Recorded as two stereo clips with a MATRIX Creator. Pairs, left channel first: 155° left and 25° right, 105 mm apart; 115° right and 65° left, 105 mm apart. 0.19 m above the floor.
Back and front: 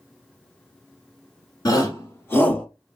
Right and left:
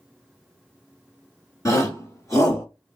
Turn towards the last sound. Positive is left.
turn(degrees=-130)